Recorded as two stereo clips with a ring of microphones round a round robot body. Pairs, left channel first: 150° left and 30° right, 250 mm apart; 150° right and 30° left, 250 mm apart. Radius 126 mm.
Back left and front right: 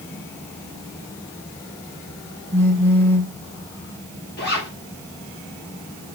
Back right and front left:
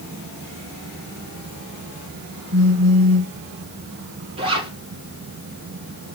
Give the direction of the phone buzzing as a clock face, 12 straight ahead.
10 o'clock.